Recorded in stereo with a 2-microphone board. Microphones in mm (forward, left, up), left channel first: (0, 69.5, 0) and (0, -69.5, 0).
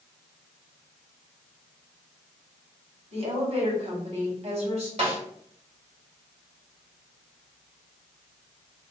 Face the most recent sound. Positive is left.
turn(degrees=-50)  # may be behind; listen again after turning